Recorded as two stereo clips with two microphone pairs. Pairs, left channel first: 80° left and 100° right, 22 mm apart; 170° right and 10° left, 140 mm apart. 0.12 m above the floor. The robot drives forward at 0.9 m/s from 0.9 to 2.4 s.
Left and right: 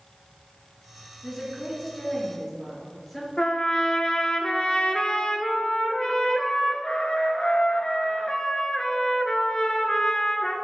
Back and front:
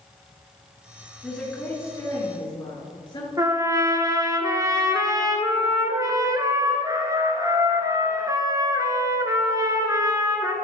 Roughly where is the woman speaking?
Left.